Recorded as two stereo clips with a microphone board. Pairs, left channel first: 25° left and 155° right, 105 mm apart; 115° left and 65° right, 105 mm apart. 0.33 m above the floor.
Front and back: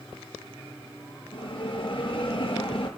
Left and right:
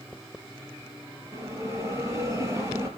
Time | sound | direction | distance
1.3 | a bell | 10° right | 5.5 m